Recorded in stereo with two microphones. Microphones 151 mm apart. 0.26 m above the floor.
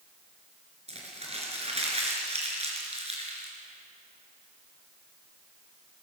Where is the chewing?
No chewing in this recording.